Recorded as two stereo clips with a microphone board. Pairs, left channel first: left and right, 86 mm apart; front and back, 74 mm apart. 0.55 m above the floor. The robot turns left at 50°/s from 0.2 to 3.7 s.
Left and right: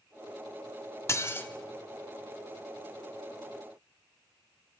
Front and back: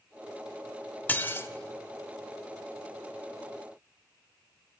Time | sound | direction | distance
1.1 | dishes clattering | 55° left | 0.7 m